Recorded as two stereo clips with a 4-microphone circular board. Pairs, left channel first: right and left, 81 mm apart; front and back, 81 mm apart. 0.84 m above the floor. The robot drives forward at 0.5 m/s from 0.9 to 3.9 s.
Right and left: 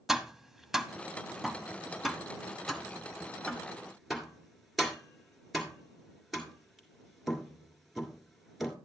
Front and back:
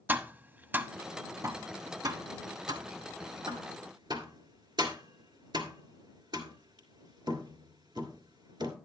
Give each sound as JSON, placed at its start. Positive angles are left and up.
{"t": 0.1, "sound": "tapping", "azimuth_deg": 170, "distance_m": 0.7}